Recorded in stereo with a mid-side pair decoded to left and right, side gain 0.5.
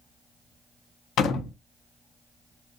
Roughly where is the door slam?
Ahead left.